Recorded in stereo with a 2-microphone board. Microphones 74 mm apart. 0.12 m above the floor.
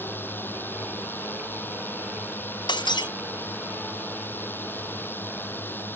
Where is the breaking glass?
85° left.